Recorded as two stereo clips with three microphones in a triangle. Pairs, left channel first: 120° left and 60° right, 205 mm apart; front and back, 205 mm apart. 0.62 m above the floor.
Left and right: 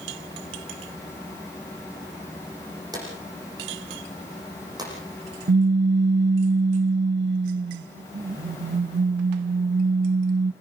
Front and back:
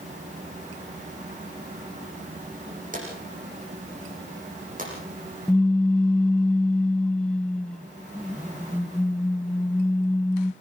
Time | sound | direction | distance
2.9 | a drawer | 130° right | 8 m
5.5 | a pop | 85° right | 0.6 m